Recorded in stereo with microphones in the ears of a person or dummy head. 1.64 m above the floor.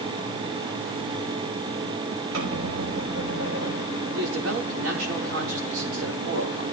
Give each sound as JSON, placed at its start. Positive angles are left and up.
{"t": 2.3, "sound": "a squeak", "side_deg": -80, "distance_m": 6.5}
{"t": 4.1, "sound": "a man speaking", "side_deg": -80, "distance_m": 3.5}